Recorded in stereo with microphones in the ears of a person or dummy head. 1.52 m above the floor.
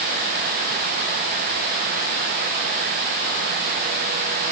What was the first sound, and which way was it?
Only background noise.